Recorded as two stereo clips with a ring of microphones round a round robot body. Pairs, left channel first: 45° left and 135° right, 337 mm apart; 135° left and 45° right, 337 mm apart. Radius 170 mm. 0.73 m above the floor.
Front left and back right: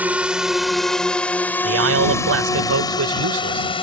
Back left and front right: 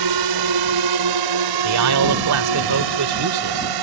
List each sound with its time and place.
0.0 s a drone: 50° right; by 3.8 s 30° right
1.6 s a man speaking: 85° right